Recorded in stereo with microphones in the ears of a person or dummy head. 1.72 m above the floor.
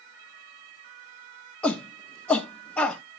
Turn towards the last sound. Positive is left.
turn(degrees=5)  # may be behind; listen again after turning